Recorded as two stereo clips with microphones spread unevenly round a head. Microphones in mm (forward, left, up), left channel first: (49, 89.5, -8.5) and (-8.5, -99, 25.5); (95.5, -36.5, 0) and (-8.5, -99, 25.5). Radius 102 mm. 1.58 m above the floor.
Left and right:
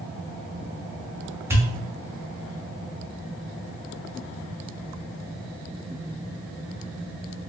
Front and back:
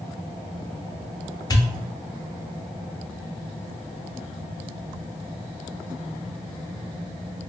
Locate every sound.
1.5 s a pop: 30° right, 0.8 m